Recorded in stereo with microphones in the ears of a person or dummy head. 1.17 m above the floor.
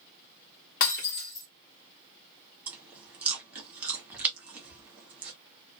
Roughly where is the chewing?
Centre.